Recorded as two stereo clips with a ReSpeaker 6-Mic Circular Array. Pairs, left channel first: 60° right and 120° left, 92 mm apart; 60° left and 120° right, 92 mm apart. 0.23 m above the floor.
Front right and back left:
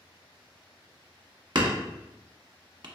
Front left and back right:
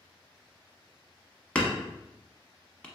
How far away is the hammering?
About 0.9 m.